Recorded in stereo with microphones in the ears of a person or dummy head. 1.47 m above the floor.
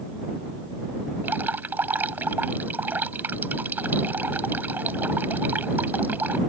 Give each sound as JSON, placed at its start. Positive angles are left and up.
{"t": 1.2, "sound": "dripping", "side_deg": -10}